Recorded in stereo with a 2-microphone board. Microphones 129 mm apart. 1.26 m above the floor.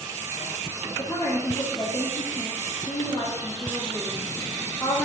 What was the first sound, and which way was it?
A woman speaking, 30° left (ahead or behind).